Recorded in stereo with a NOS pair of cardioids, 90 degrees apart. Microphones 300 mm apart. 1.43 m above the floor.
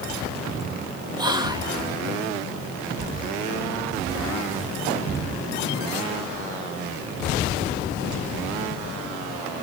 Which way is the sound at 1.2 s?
15° right.